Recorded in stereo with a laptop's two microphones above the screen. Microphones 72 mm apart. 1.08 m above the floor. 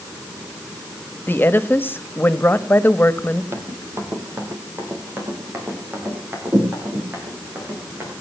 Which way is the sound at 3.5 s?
40° right (ahead or behind).